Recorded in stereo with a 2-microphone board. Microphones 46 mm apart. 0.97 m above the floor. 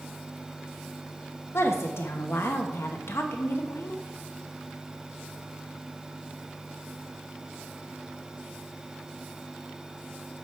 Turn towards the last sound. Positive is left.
turn(degrees=65)  # may be behind; listen again after turning